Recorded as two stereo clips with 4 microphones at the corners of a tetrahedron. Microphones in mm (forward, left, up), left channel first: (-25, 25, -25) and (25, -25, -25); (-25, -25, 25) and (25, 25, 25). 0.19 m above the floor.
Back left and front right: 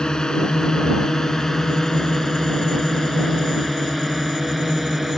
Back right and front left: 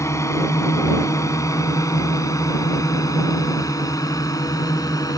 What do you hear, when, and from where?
0.0 s a drone: 150° right; by 5.2 s 130° right